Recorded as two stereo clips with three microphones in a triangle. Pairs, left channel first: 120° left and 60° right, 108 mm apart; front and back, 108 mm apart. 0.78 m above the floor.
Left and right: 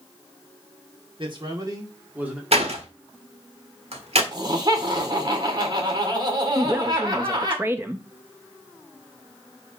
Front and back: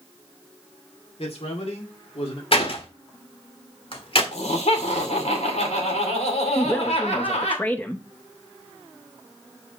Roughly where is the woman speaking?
Ahead right.